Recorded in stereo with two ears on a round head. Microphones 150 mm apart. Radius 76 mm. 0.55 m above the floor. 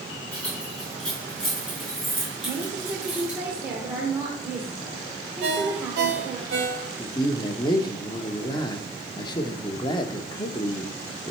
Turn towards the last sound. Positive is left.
turn(degrees=25)  # may be behind; listen again after turning